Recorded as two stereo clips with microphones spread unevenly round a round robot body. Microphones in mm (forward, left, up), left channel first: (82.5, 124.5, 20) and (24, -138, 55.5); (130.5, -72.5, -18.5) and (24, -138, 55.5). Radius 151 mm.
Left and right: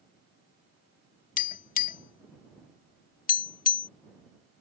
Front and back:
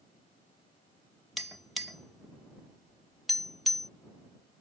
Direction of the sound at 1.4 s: 145° left.